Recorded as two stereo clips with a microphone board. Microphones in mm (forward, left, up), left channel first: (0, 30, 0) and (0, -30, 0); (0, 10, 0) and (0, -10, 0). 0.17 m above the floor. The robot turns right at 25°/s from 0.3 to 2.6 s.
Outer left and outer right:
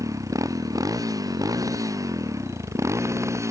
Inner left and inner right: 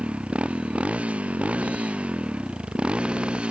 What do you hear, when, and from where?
0.0 s a motorcycle: 115° right; by 3.5 s 55° right